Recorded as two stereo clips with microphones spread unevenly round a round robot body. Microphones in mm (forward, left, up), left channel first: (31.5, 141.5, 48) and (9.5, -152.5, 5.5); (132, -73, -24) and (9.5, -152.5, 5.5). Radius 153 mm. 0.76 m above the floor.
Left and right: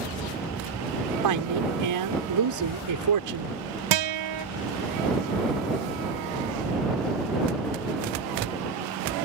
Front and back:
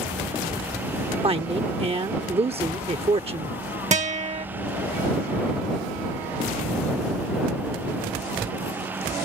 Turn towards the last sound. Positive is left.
turn(degrees=-105)